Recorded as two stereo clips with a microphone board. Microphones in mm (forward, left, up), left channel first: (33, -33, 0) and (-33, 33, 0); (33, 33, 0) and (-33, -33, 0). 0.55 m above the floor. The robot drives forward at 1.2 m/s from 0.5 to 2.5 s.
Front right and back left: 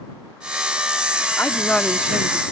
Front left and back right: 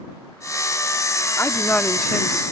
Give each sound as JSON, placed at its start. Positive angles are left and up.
{"t": 1.4, "sound": "a woman speaking", "azimuth_deg": 0}